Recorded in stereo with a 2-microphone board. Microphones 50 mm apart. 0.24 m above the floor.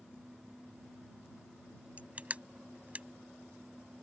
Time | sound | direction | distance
2.0 | crushing | 30° right (ahead or behind) | ?